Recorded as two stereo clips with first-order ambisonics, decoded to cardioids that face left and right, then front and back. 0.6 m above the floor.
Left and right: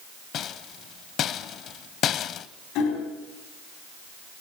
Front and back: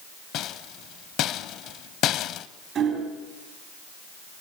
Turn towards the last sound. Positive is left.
turn(degrees=120)